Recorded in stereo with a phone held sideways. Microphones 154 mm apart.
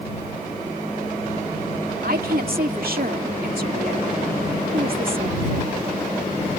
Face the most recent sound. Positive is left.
turn(degrees=-70)  # may be behind; listen again after turning